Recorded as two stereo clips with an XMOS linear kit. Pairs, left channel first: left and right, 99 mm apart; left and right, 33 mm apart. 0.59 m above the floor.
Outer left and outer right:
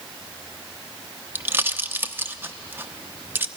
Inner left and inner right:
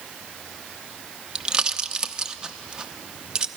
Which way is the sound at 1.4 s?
20° right (ahead or behind).